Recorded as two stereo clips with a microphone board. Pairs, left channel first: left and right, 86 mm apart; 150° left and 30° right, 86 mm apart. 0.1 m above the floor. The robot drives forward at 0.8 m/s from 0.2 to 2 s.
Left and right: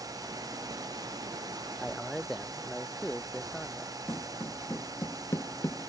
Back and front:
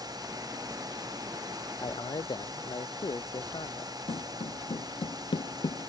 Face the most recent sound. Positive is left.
turn(degrees=150)